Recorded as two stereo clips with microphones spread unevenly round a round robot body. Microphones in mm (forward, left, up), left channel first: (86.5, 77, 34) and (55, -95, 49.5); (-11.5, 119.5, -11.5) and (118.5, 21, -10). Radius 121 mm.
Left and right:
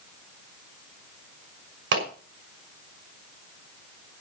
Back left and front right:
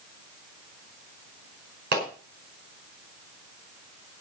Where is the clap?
90° right, 6 m.